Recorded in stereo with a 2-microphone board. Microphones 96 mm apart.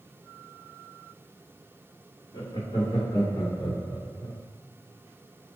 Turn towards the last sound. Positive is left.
turn(degrees=40)  # may be behind; listen again after turning